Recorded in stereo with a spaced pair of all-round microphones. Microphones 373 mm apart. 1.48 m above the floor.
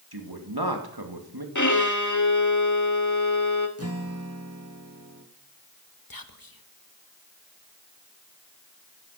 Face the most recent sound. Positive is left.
turn(degrees=65)  # may be behind; listen again after turning